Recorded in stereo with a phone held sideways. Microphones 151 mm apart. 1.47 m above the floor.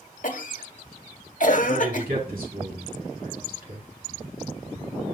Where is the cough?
60° left (ahead or behind), 1.1 m.